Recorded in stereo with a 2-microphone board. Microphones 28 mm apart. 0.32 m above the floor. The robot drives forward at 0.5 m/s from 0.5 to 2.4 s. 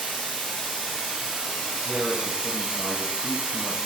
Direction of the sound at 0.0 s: 15° right (ahead or behind).